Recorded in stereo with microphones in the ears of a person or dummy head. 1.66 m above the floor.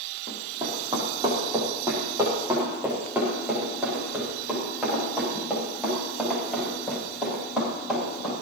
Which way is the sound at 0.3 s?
25° right (ahead or behind).